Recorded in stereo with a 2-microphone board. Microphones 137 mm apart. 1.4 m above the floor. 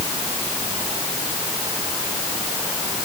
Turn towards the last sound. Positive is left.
No sound to turn to.